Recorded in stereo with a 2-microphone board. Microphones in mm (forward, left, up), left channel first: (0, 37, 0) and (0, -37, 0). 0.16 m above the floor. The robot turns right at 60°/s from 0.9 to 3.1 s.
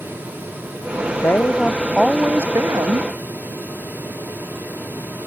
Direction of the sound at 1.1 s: 135° left.